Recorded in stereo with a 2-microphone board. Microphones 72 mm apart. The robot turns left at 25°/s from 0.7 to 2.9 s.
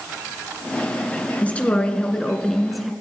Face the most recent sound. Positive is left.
turn(degrees=-5)